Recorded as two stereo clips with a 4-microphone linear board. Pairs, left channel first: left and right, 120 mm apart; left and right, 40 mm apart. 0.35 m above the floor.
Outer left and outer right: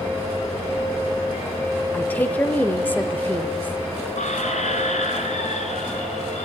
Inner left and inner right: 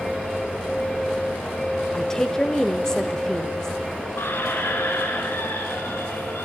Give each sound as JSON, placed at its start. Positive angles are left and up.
{"t": 1.9, "sound": "a woman speaking", "side_deg": 15, "distance_m": 0.9}
{"t": 4.2, "sound": "a squeak", "side_deg": 75, "distance_m": 3.0}